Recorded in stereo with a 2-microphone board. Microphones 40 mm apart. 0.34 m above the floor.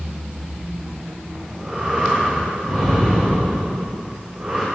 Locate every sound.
1.4 s breathing: 25° right (ahead or behind), 8 m